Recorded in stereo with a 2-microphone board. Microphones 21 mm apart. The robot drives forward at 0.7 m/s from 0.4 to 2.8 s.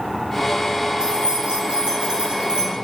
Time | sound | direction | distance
1.0 | keys jangling | 50° right (ahead or behind) | 3.5 m